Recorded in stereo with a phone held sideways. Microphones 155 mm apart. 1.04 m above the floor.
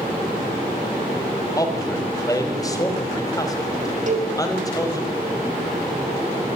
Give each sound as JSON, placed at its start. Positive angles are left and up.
{"t": 1.6, "sound": "a man speaking", "side_deg": 20, "distance_m": 4.0}
{"t": 4.1, "sound": "a cowbell", "side_deg": -55, "distance_m": 5.0}